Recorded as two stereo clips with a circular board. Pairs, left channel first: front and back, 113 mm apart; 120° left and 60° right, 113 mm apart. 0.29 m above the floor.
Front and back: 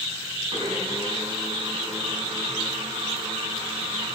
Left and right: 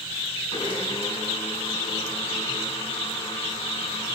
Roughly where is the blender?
Behind left.